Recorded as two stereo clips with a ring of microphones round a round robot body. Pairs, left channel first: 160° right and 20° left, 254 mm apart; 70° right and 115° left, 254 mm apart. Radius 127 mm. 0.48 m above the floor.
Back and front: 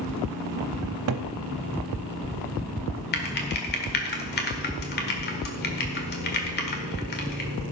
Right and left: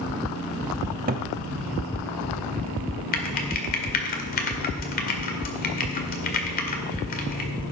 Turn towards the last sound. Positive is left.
turn(degrees=-115)